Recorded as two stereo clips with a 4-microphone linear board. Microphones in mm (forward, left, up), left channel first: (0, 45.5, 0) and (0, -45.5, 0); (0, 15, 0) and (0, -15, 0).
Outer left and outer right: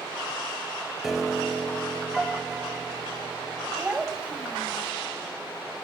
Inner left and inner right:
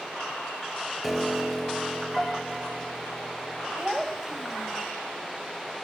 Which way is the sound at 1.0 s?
5° right (ahead or behind).